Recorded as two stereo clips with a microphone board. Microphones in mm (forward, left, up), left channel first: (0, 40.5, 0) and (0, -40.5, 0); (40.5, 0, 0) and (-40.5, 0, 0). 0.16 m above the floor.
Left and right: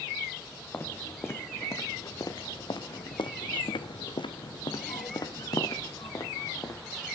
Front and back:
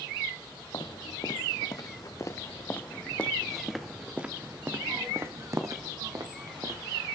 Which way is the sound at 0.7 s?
25° left.